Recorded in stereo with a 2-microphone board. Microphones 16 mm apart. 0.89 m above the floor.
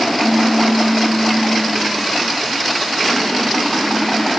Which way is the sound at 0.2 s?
25° right (ahead or behind).